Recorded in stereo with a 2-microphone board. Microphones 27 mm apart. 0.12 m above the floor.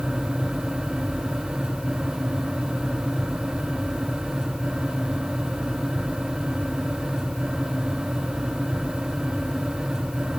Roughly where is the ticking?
No ticking in this recording.